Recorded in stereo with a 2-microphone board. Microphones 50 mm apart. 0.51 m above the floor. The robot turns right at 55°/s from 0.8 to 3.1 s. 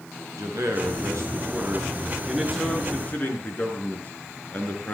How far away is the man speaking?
About 8 m.